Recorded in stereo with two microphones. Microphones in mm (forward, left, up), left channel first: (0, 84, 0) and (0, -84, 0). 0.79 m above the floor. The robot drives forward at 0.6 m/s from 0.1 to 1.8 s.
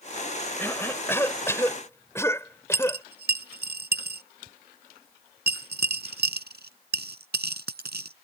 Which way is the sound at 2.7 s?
85° right.